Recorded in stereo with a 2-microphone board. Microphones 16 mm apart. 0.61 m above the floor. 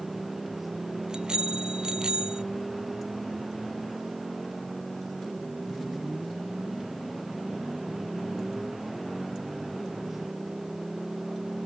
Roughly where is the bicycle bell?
Right.